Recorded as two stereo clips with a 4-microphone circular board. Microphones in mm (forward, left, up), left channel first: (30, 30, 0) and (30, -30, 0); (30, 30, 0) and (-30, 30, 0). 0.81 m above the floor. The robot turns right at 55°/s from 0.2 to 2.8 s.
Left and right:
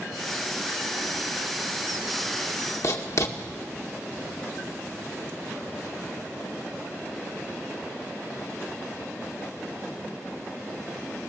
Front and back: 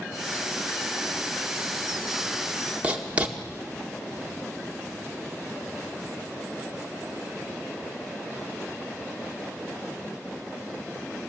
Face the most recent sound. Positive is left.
turn(degrees=110)